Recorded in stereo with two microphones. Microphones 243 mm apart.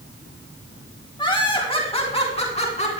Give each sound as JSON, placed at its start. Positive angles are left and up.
{"t": 1.2, "sound": "laughter", "side_deg": 20, "distance_m": 2.5}